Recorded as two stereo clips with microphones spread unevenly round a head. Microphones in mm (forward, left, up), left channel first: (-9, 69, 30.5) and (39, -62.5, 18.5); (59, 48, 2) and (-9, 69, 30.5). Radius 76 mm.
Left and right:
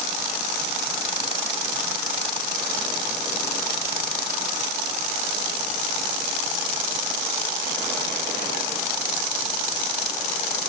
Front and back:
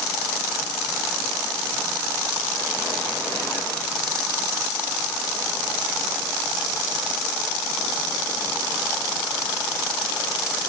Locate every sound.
Only background noise.